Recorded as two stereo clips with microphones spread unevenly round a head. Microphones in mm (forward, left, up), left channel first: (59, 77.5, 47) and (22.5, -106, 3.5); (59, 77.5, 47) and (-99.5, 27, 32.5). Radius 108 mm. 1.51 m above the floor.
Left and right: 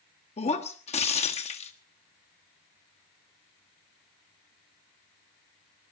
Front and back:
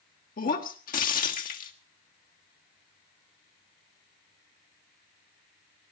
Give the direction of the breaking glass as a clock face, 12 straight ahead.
11 o'clock.